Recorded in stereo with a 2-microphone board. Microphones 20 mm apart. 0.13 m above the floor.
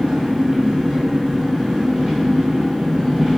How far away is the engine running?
About 1.7 m.